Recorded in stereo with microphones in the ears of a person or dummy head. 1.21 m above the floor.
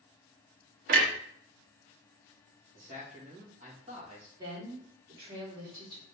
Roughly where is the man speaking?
Right.